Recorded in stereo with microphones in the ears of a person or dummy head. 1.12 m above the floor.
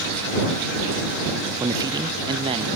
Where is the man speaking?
20° right (ahead or behind); by 2.7 s 30° right (ahead or behind).